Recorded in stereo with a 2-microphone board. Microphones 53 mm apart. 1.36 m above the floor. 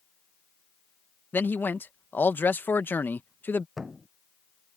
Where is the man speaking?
40° left (ahead or behind).